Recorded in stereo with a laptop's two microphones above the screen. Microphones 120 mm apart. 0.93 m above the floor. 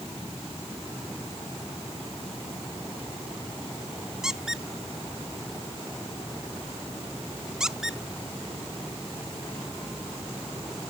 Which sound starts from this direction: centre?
A squeak, at 4.2 s.